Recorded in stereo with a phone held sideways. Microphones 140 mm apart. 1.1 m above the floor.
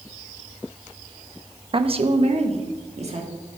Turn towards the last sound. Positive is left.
turn(degrees=-50)  # may be behind; listen again after turning